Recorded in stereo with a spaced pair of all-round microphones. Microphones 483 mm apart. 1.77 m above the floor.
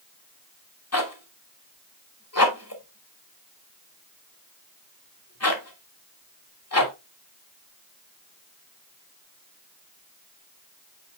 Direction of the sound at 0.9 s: 30° left (ahead or behind).